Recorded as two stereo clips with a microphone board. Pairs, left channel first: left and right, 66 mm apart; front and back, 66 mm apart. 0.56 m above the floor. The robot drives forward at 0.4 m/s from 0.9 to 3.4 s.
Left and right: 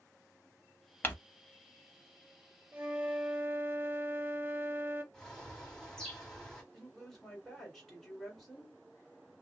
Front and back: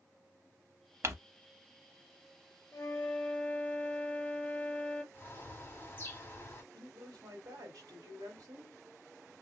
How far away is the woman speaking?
About 1.8 m.